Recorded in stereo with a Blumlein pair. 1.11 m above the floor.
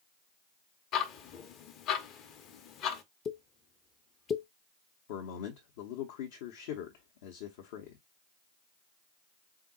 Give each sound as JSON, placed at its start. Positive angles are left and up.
{"t": 0.9, "sound": "ticking", "azimuth_deg": 35, "distance_m": 0.8}
{"t": 3.2, "sound": "a pop", "azimuth_deg": 25, "distance_m": 0.6}
{"t": 5.1, "sound": "a man speaking", "azimuth_deg": 50, "distance_m": 0.8}